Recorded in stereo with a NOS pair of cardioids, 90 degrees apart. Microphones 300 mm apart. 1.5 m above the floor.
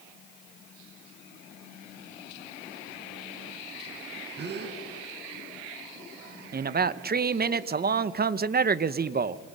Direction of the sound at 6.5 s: 35° right.